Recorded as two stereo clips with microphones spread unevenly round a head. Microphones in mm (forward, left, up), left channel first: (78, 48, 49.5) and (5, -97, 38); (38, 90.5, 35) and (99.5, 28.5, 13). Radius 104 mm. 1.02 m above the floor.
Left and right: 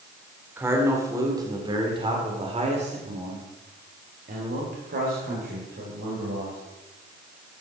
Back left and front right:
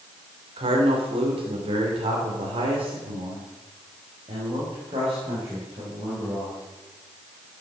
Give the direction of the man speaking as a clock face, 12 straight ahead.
1 o'clock.